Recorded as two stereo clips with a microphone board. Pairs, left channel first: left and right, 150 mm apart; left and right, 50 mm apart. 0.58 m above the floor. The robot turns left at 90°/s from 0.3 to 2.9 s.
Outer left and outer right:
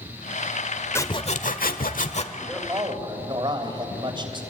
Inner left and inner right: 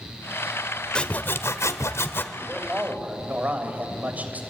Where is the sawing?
165° left, 1.3 m; by 2.2 s 45° left, 1.3 m.